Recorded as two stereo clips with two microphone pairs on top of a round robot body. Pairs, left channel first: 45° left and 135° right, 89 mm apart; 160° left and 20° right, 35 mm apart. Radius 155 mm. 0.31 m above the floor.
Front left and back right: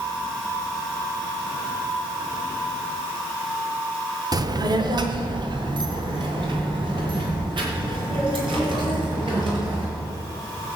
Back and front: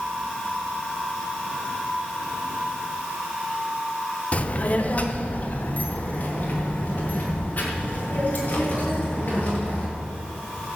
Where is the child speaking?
160° right, 1.3 m.